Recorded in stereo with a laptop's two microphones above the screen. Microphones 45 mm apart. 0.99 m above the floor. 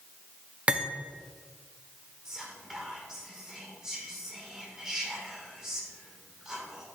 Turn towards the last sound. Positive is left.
turn(degrees=-10)  # may be behind; listen again after turning